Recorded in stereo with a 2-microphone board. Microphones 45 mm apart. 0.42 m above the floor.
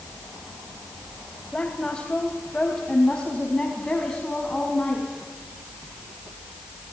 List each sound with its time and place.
1.5 s a woman speaking: 20° left (ahead or behind), 2.5 m; by 5.1 s 15° left (ahead or behind), 4.5 m